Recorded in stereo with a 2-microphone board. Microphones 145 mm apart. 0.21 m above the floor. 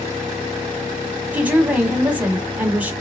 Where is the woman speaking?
10° right (ahead or behind), 1.1 m.